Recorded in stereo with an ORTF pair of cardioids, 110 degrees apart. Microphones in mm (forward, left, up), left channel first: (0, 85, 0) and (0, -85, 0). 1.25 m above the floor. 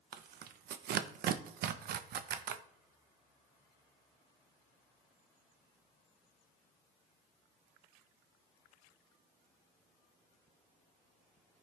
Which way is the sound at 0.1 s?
65° right.